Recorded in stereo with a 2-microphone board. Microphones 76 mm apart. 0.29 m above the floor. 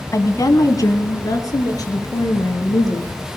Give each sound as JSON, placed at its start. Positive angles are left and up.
{"t": 0.1, "sound": "a woman speaking", "side_deg": 45, "distance_m": 1.7}